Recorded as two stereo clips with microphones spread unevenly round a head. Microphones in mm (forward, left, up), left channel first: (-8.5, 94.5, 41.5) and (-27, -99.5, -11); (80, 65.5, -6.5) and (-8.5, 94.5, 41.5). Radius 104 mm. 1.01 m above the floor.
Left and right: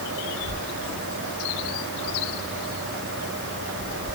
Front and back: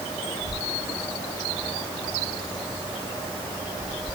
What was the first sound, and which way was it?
Only background noise.